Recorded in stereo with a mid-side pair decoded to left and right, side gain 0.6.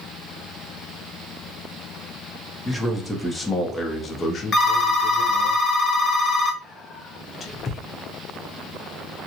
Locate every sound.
2.6 s a man speaking: 5° right, 1.4 m; by 5.5 s 75° left, 1.0 m
4.5 s a phone ringing: 30° left, 0.8 m
6.6 s whispering: 35° left, 0.9 m